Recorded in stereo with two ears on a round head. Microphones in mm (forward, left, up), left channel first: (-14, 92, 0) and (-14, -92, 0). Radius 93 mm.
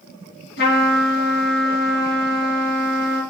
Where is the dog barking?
No dog barking in this recording.